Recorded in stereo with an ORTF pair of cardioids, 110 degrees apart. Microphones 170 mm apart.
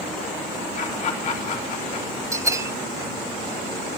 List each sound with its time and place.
0.8 s laughter: 45° left, 3.5 m
2.3 s a bell: 20° right, 0.8 m